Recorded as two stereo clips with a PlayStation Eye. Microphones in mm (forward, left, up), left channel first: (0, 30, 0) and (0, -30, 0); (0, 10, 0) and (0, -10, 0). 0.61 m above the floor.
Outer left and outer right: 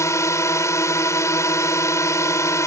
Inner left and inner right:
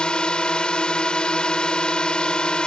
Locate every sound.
0.0 s a drone: 60° left (ahead or behind)